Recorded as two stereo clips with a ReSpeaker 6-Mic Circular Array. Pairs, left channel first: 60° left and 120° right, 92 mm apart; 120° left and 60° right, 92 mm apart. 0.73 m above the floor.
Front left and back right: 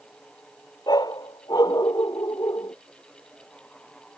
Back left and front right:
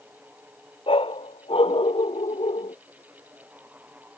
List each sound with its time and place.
0.9 s a dog barking: 105° left; by 2.8 s 110° left